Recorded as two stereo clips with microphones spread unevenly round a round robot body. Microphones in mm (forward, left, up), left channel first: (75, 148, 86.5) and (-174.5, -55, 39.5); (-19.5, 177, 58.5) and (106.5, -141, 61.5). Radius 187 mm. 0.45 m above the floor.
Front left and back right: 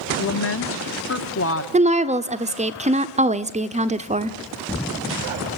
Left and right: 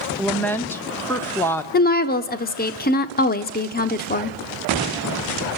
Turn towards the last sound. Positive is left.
turn(degrees=165)